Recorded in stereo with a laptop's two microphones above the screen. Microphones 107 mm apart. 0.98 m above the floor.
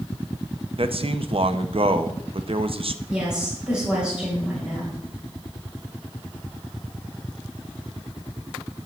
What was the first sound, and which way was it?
A man speaking, 60° right (ahead or behind).